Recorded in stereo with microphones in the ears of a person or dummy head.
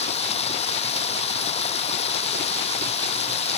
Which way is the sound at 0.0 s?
30° left (ahead or behind).